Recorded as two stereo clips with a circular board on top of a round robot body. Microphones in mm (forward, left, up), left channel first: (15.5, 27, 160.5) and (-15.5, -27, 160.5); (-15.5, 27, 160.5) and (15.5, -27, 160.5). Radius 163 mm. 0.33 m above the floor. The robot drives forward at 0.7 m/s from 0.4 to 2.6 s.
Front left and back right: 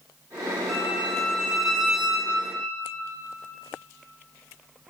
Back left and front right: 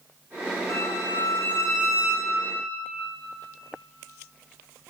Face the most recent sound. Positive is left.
turn(degrees=160)